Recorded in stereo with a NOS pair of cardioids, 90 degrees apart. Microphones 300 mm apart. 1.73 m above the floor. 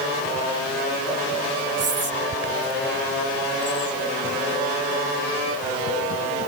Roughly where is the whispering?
Ahead right.